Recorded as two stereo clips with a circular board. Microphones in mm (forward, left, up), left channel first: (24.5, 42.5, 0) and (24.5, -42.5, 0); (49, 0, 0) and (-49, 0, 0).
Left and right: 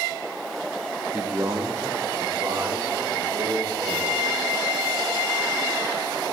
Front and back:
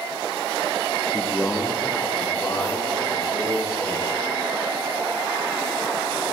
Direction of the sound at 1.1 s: 110° right.